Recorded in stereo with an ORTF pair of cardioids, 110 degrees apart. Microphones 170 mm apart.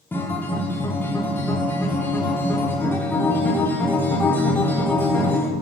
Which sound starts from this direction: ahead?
A guitar, at 0.1 s.